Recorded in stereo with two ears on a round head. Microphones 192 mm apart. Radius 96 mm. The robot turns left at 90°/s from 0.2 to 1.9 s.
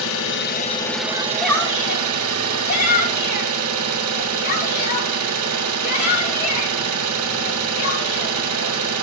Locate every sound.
0.0 s an engine running: 70° left, 1.2 m; by 9.0 s 80° right, 1.2 m
1.1 s a shout: 25° right (ahead or behind), 3 m; by 8.9 s 45° left (ahead or behind), 3 m